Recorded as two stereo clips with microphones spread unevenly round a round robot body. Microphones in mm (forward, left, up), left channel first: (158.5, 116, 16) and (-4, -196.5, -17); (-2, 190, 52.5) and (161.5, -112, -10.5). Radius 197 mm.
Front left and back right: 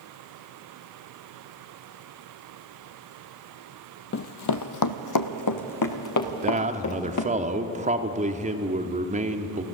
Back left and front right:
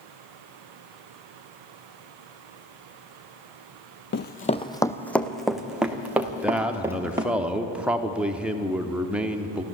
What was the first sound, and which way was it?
Running footsteps, 95° left.